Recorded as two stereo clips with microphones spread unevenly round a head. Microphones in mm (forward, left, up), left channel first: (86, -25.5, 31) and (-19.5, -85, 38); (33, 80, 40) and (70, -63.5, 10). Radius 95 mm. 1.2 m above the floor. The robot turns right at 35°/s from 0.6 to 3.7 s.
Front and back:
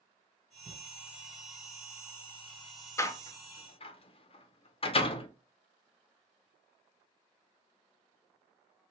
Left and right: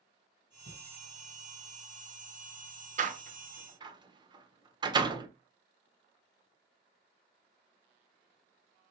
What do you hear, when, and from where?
0.7 s a thud: 175° left, 1.7 m; by 0.8 s straight behind, 1.7 m
3.0 s a door slam: 40° right, 0.7 m; by 5.3 s 15° right, 0.7 m